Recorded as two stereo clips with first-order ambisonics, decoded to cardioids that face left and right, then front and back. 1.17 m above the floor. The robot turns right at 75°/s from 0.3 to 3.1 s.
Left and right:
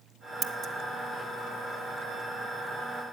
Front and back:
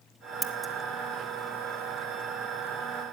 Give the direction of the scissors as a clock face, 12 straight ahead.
4 o'clock.